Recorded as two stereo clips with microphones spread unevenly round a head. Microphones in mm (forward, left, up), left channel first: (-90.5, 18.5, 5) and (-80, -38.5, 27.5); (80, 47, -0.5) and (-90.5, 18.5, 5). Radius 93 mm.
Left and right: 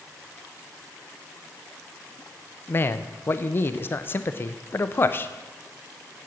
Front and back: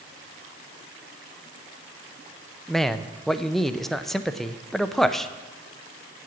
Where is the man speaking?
95° left, 0.6 m.